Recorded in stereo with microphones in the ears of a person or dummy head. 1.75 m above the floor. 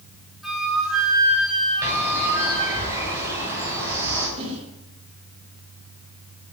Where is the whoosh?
40° right (ahead or behind), 5 m.